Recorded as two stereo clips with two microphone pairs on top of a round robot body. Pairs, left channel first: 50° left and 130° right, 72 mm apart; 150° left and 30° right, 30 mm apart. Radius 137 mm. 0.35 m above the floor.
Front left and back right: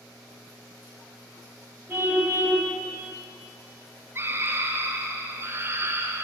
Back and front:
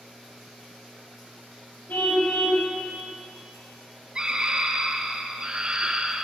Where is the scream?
70° right, 2 m.